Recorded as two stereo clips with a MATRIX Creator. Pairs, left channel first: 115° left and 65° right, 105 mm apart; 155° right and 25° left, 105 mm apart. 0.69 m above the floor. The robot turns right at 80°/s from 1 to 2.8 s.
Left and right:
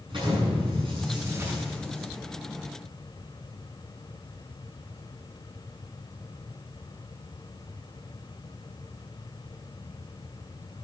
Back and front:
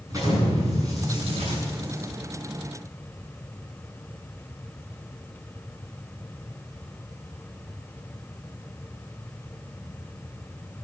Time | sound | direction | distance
0.1 | an explosion | 35° right | 8 m